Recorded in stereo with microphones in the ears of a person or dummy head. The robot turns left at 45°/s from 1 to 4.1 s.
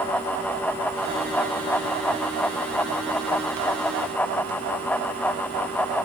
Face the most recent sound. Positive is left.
No sound to turn to.